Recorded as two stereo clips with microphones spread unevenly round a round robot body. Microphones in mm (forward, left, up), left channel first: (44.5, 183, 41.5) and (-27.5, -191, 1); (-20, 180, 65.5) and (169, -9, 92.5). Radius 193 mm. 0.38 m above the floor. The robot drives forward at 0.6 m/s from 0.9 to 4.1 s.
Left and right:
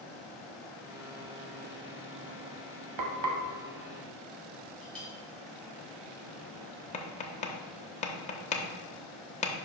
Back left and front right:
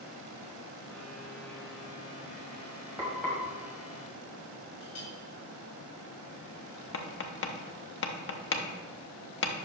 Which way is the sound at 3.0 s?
130° right.